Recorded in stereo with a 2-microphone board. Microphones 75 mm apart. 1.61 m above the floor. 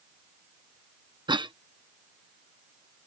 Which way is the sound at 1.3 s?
85° right.